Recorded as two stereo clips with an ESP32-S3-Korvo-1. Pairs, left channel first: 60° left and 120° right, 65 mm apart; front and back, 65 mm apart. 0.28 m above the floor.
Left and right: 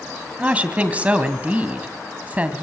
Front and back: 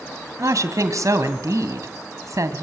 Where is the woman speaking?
175° left, 2.0 m.